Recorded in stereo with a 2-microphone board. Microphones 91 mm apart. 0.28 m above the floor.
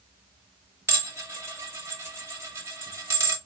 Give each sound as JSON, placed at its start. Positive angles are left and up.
{"t": 0.9, "sound": "dishes clattering", "side_deg": -30, "distance_m": 0.9}